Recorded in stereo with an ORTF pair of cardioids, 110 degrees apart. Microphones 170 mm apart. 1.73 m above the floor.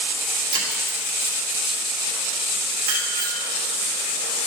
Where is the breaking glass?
55° right, 3 m.